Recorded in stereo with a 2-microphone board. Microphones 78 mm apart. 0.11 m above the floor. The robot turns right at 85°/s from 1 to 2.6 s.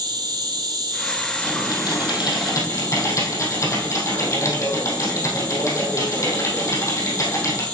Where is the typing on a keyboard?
35° left, 3 m; by 7.7 s 135° left, 3 m.